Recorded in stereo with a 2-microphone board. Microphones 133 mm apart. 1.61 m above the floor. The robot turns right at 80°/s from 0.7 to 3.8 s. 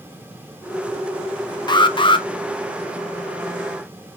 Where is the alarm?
65° left, 0.6 m; by 2.3 s 110° left, 0.6 m.